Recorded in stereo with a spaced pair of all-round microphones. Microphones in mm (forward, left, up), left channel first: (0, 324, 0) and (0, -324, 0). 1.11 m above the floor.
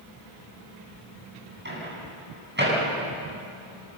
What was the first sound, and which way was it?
A microwave, 15° right (ahead or behind).